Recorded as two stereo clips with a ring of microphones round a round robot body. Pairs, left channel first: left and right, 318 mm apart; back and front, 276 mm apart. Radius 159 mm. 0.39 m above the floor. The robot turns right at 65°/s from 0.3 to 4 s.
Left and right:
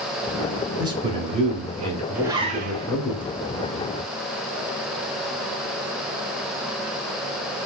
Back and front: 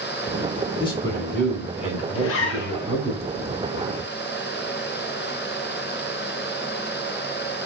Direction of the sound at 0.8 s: 145° right.